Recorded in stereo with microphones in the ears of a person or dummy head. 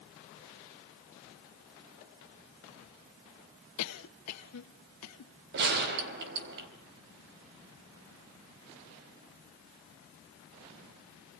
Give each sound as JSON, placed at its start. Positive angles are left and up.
{"t": 3.8, "sound": "a cough", "side_deg": 80, "distance_m": 1.6}
{"t": 5.5, "sound": "a gunshot", "side_deg": -60, "distance_m": 4.0}